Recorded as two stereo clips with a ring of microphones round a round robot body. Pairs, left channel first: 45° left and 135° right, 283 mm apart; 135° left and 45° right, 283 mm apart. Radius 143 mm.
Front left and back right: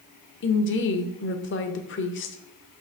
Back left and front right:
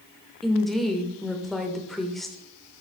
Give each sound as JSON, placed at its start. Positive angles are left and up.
{"t": 0.4, "sound": "a woman speaking", "azimuth_deg": 45, "distance_m": 1.1}